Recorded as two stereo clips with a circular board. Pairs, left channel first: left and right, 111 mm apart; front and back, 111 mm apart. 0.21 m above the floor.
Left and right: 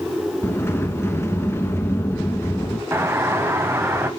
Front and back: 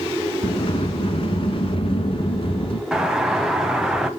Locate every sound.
0.4 s a sliding door: 25° left, 1.1 m
2.9 s a doorbell: 105° right, 1.4 m